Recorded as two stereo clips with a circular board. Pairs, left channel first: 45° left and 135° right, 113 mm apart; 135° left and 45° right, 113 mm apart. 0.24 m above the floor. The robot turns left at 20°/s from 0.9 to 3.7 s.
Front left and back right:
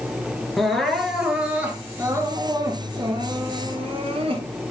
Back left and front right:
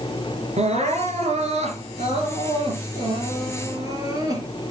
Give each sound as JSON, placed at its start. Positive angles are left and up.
{"t": 0.6, "sound": "crying", "azimuth_deg": -45, "distance_m": 4.0}